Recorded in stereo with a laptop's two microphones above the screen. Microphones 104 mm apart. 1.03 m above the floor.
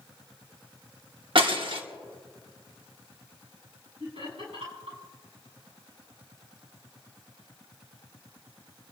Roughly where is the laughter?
Right.